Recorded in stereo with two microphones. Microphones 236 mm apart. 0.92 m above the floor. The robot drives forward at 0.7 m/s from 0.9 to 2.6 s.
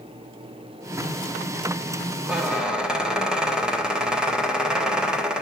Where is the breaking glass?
No breaking glass in this recording.